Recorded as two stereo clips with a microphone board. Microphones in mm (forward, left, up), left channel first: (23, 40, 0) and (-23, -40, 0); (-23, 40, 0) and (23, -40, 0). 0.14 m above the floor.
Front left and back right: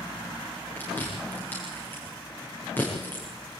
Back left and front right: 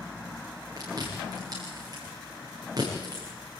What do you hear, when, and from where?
0.8 s chewing: 10° right, 8.5 m